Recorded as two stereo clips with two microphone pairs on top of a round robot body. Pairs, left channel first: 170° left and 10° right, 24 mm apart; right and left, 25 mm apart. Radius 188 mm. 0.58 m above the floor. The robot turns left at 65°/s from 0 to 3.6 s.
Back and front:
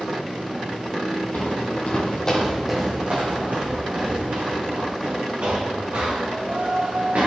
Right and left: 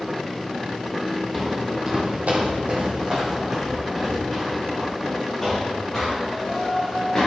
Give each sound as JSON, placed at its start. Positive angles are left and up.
{"t": 1.3, "sound": "footsteps", "azimuth_deg": -175, "distance_m": 1.3}